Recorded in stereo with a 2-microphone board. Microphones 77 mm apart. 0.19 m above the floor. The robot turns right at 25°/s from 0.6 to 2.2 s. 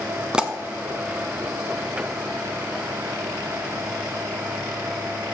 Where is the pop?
10° right (ahead or behind), 0.9 m.